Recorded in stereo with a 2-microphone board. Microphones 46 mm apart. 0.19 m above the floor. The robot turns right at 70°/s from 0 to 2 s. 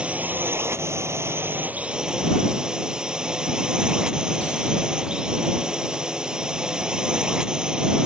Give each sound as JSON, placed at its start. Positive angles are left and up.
{"t": 0.0, "sound": "a drone", "azimuth_deg": -155}